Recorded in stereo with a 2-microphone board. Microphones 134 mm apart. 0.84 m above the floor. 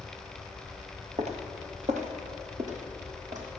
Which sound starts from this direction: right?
Footsteps, at 1.2 s.